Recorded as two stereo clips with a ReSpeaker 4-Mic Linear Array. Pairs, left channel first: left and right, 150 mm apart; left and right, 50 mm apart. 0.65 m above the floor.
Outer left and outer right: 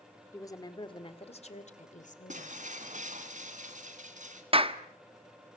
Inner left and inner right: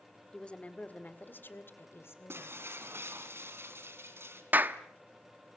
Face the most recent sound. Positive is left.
turn(degrees=-40)  # may be behind; listen again after turning